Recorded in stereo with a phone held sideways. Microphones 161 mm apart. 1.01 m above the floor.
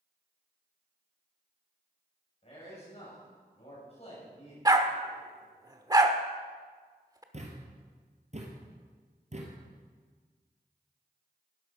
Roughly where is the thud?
Right.